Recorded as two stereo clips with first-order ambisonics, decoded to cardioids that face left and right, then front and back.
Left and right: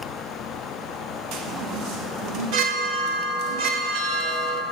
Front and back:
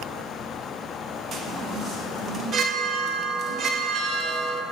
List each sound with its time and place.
1.3 s a chime: 120° right, 0.6 m